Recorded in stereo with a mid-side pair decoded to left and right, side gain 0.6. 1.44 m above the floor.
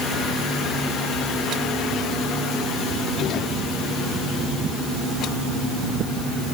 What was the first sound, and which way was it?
Only background noise.